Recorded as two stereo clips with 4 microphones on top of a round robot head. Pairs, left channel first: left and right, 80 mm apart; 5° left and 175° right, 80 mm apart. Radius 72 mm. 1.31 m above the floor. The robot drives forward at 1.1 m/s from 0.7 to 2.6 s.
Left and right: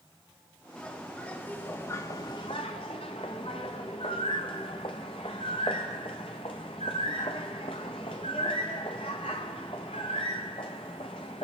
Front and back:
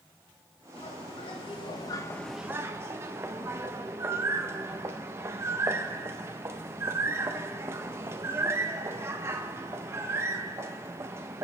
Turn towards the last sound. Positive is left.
turn(degrees=130)